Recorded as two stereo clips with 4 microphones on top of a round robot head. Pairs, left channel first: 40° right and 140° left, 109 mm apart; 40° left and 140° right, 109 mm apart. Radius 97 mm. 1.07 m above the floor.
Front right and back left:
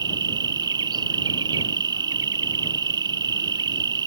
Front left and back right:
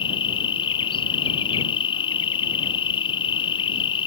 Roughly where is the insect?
Left.